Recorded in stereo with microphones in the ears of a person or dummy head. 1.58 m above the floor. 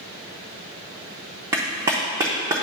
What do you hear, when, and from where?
1.5 s a clap: 15° right (ahead or behind), 0.6 m